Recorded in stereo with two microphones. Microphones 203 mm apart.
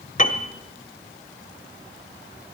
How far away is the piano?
About 0.8 m.